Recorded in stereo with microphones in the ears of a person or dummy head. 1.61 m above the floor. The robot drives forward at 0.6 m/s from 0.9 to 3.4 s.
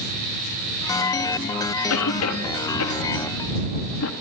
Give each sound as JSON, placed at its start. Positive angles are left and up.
{"t": 1.9, "sound": "a cough", "side_deg": 85, "distance_m": 2.5}